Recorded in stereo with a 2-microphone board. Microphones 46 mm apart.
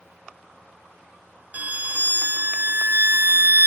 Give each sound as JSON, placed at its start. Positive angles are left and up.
{"t": 1.5, "sound": "a violin", "side_deg": -40}